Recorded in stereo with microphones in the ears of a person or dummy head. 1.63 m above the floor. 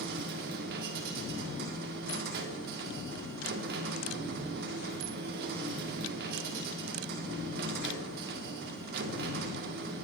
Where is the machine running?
55° right (ahead or behind), 1.9 m.